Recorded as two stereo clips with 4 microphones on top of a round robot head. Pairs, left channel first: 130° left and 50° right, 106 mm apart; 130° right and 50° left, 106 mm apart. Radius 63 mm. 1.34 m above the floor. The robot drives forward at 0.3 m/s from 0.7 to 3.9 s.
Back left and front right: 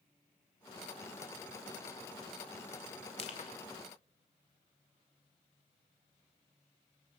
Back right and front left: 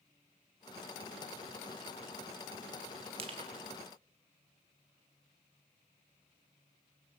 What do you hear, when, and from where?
3.2 s crushing: 90° left, 2 m; by 3.6 s 95° left, 2 m